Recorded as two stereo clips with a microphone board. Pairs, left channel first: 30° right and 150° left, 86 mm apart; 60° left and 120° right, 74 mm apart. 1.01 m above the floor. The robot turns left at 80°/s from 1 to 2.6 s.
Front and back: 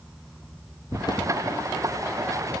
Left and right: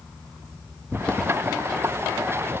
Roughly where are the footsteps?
Ahead.